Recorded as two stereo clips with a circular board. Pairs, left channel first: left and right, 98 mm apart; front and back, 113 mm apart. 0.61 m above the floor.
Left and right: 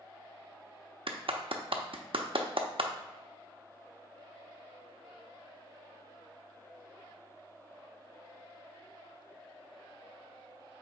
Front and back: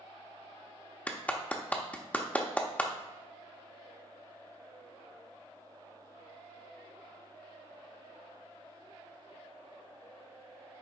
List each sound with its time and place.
1.1 s a clap: 75° right, 0.7 m